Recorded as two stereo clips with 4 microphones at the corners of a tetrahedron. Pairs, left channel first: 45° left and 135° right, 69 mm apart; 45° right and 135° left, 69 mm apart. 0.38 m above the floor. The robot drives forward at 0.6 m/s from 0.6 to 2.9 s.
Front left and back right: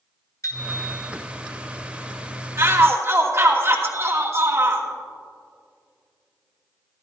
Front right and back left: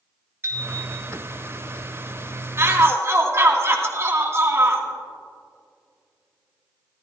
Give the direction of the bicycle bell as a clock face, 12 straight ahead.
9 o'clock.